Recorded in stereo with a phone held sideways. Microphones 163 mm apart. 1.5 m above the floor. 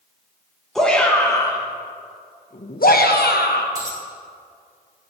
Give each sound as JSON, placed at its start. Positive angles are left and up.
{"t": 0.8, "sound": "a shout", "side_deg": 0, "distance_m": 1.3}
{"t": 3.8, "sound": "a dropped coin", "side_deg": -25, "distance_m": 3.0}